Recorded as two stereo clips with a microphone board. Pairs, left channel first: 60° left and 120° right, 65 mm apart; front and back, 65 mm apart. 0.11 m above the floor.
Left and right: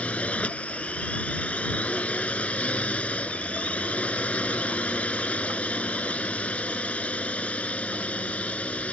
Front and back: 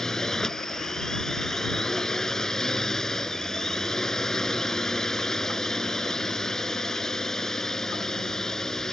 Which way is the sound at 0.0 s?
65° left.